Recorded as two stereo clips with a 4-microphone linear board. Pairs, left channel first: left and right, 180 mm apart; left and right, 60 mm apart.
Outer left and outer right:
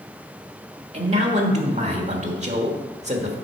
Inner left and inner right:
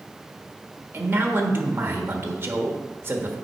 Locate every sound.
0.9 s a man speaking: 40° right (ahead or behind), 1.3 m